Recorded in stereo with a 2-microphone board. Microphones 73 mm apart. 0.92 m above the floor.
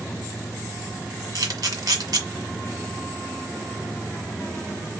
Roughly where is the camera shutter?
Right.